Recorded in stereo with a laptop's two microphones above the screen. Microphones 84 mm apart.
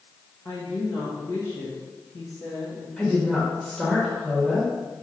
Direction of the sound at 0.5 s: 50° left (ahead or behind).